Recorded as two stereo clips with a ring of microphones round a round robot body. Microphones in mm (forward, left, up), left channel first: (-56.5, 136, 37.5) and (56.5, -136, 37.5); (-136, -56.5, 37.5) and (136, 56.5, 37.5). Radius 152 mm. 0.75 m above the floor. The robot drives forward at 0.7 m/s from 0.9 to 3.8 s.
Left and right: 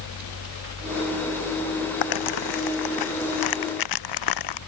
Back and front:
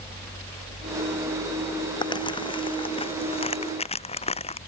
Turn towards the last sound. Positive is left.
turn(degrees=130)